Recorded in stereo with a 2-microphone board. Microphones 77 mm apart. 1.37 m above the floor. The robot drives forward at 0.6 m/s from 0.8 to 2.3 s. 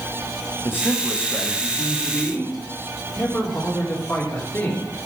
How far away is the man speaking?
About 1.4 m.